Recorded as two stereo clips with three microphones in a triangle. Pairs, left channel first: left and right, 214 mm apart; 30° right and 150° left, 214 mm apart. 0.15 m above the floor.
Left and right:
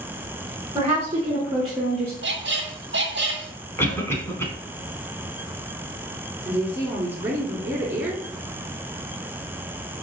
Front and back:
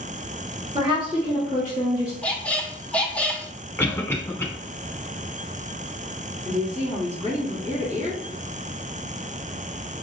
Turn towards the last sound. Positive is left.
turn(degrees=-165)